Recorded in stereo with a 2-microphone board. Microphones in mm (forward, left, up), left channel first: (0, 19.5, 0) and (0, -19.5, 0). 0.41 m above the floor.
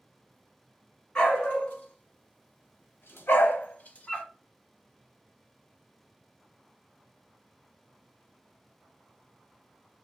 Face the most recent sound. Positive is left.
turn(degrees=30)  # may be behind; listen again after turning